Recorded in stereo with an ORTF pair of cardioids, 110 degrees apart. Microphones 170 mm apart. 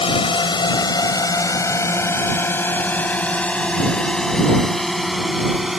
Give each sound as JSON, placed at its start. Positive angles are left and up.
{"t": 0.0, "sound": "a drone", "azimuth_deg": 30}